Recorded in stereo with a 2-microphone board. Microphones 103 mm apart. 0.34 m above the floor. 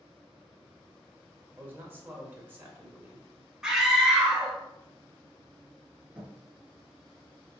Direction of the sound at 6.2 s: 15° right (ahead or behind).